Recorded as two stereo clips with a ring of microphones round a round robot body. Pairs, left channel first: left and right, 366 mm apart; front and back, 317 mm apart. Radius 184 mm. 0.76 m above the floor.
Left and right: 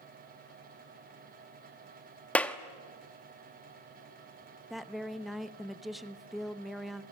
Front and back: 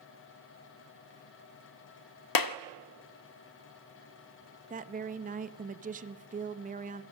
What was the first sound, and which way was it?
A clap, 5° left.